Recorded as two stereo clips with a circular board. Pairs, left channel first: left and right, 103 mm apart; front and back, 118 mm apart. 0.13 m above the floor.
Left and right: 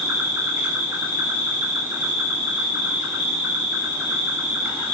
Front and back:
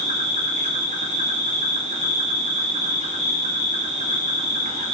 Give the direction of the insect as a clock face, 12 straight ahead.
6 o'clock.